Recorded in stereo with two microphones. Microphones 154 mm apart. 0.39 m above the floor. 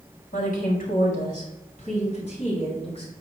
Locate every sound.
0.3 s a woman speaking: 65° left (ahead or behind), 3.5 m; by 3.1 s 40° left (ahead or behind), 4 m